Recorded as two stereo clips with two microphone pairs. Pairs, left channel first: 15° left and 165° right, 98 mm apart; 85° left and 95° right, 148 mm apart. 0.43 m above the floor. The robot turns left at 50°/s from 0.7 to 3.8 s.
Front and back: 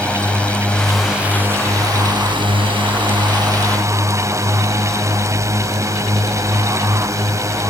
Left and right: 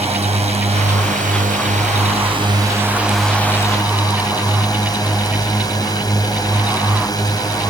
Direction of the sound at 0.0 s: 60° right.